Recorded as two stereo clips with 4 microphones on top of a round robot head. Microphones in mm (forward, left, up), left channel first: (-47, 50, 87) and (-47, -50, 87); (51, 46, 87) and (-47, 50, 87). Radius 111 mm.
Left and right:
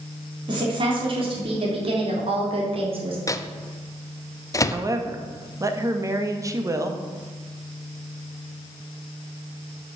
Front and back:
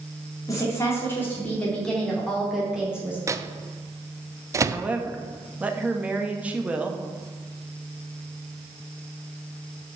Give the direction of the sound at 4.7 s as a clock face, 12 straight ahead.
4 o'clock.